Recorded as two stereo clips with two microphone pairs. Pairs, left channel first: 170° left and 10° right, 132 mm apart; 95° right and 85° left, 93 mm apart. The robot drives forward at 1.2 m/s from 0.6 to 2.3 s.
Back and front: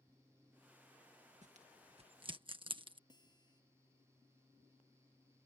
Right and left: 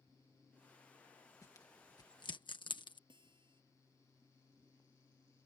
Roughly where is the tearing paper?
Ahead right.